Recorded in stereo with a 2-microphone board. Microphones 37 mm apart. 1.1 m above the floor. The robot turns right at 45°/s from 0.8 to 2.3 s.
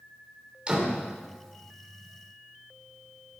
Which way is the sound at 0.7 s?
25° right (ahead or behind).